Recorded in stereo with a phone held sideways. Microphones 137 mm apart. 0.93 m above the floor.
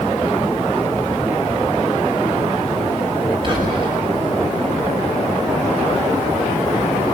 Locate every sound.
3.4 s whispering: 40° right (ahead or behind), 5 m